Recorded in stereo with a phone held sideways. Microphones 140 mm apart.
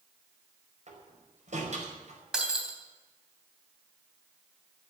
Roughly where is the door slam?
Right.